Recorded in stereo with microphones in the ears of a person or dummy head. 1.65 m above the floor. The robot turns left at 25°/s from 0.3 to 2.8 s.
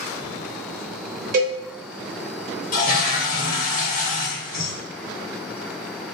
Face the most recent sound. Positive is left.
turn(degrees=50)  # may be behind; listen again after turning